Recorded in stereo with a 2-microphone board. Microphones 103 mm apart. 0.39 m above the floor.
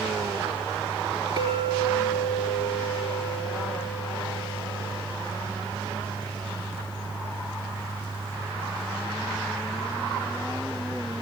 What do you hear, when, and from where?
1.4 s a clink: 45° right (ahead or behind), 4 m